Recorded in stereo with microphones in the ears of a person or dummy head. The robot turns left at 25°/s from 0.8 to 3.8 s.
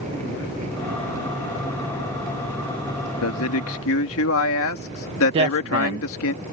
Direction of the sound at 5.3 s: 30° right (ahead or behind).